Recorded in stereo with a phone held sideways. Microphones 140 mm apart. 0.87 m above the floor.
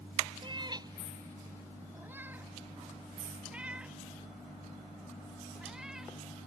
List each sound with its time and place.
0.4 s a cat meowing: 35° right (ahead or behind); by 6.1 s 5° right (ahead or behind)